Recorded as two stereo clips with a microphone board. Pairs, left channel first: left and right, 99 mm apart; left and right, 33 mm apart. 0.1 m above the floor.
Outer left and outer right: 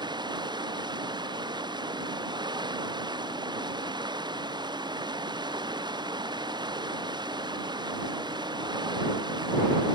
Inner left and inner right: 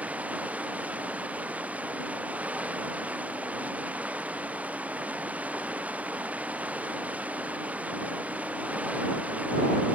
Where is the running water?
45° right (ahead or behind).